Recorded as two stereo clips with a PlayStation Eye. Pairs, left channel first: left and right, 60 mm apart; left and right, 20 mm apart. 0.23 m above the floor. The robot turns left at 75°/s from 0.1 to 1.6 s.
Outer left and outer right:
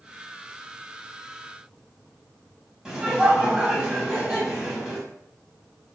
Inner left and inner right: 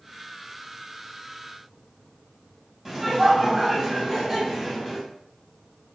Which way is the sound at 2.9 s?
10° right (ahead or behind).